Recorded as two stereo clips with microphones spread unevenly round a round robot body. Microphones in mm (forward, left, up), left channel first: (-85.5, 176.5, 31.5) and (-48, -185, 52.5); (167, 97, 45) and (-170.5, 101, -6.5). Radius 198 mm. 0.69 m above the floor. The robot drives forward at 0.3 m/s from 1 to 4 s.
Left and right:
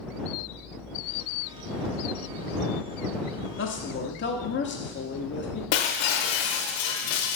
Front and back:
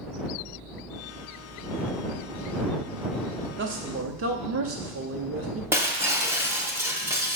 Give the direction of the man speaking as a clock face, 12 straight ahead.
7 o'clock.